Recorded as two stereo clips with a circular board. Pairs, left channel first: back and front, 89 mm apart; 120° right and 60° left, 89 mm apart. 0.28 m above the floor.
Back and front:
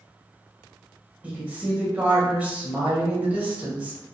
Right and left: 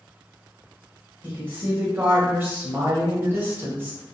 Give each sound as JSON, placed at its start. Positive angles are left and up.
{"t": 1.2, "sound": "a woman speaking", "azimuth_deg": 45, "distance_m": 1.0}